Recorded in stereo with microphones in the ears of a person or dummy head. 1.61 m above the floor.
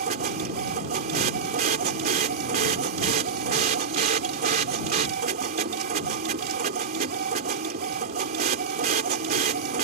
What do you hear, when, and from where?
0.0 s a machine running: 50° right (ahead or behind)